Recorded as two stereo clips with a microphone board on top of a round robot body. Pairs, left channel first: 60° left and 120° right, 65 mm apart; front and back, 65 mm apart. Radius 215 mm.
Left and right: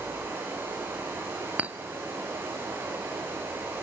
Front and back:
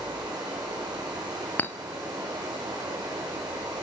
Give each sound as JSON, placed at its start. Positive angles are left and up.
{"t": 0.0, "sound": "running water", "azimuth_deg": 180, "distance_m": 6.0}
{"t": 1.6, "sound": "a clink", "azimuth_deg": -55, "distance_m": 0.9}